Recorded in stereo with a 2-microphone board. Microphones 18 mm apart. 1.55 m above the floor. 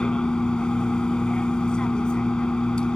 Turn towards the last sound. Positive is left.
turn(degrees=60)  # may be behind; listen again after turning